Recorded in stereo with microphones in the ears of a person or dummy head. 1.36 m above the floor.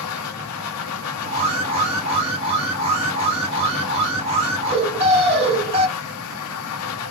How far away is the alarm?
About 1.9 m.